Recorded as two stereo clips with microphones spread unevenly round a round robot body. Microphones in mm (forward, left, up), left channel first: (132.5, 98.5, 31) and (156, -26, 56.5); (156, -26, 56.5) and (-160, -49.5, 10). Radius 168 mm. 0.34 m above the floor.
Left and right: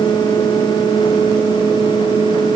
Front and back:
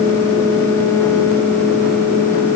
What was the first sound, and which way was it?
Only background noise.